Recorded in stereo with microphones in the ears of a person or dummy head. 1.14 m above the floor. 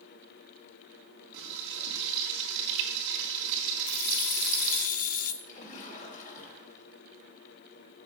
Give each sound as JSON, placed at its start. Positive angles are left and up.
{"t": 1.3, "sound": "frying", "side_deg": -70, "distance_m": 3.0}
{"t": 3.9, "sound": "keys jangling", "side_deg": 45, "distance_m": 0.9}
{"t": 5.4, "sound": "a splash", "side_deg": 40, "distance_m": 3.5}